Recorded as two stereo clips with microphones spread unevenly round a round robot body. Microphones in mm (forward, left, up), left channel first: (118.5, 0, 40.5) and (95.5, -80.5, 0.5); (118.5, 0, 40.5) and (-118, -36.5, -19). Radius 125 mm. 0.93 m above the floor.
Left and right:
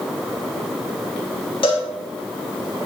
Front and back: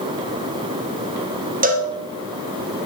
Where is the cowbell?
140° left, 1.2 m.